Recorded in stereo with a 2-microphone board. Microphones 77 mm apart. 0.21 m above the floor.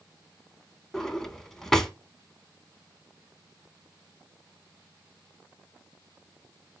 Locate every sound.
0.9 s a drawer: 5° left (ahead or behind), 0.5 m